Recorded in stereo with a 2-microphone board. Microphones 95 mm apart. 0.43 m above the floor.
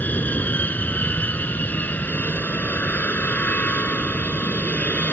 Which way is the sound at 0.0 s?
20° left (ahead or behind).